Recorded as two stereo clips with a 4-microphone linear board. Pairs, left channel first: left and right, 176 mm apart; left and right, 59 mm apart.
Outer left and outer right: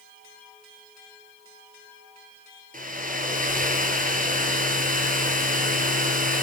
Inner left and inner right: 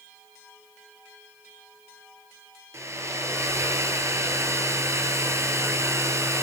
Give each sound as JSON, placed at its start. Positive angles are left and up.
{"t": 2.7, "sound": "a hair dryer", "side_deg": -50, "distance_m": 1.3}